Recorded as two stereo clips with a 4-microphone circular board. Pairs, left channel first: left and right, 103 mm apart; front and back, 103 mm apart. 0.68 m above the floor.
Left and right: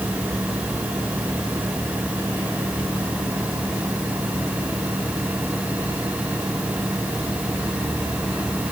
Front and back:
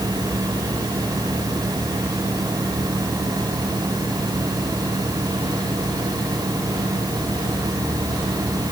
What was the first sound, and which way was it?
Only background noise.